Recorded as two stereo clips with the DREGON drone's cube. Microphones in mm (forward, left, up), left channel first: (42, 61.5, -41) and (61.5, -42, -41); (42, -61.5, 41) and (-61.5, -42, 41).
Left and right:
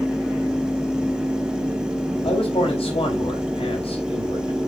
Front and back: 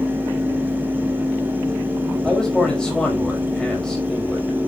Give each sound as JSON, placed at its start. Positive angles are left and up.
{"t": 2.2, "sound": "a man speaking", "azimuth_deg": 75, "distance_m": 4.0}